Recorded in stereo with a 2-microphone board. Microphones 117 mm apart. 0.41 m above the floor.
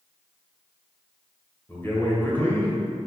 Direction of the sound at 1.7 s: 20° left (ahead or behind).